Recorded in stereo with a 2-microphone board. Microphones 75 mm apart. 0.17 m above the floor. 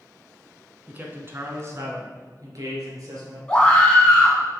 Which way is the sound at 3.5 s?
15° left (ahead or behind).